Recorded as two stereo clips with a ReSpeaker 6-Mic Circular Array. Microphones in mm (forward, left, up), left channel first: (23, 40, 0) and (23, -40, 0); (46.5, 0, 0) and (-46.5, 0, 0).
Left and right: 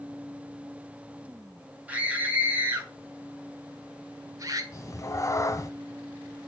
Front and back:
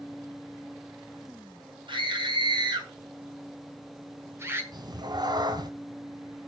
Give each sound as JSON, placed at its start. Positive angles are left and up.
{"t": 1.9, "sound": "a scream", "azimuth_deg": -160, "distance_m": 3.5}
{"t": 4.7, "sound": "a cat meowing", "azimuth_deg": 140, "distance_m": 0.9}